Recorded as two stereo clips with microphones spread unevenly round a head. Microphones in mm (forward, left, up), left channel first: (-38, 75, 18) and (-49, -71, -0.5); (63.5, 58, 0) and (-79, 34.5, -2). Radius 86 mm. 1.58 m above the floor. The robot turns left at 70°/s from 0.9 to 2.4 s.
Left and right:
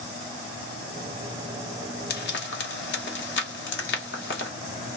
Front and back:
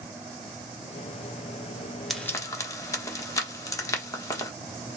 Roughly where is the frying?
Left.